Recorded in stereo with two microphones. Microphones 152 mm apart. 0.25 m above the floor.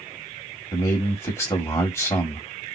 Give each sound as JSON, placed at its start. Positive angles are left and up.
{"t": 0.7, "sound": "a man speaking", "side_deg": 20, "distance_m": 1.1}